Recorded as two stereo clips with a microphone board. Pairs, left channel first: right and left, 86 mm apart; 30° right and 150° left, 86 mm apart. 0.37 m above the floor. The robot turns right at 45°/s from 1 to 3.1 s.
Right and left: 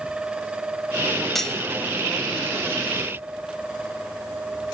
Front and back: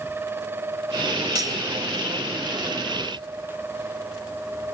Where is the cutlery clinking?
175° right, 1.3 m; by 1.6 s 165° right, 1.3 m.